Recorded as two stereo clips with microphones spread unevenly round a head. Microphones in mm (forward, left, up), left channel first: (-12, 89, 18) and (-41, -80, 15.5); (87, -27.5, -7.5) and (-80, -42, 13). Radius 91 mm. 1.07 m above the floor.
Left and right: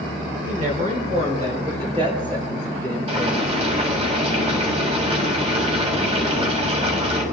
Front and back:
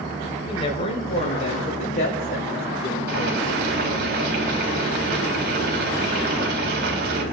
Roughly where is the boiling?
Behind right.